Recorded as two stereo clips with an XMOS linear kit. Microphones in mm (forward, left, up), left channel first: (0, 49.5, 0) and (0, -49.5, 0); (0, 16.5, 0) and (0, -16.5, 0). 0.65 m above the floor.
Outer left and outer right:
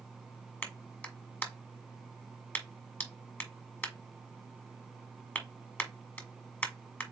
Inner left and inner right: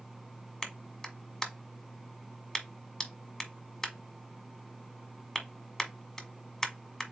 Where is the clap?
20° left (ahead or behind), 1.2 m.